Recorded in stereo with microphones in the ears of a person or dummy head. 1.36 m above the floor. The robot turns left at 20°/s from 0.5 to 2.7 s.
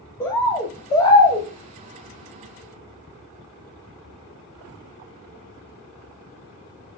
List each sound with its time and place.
0.2 s a bird: 15° left (ahead or behind), 0.8 m; by 1.5 s 25° left (ahead or behind), 0.8 m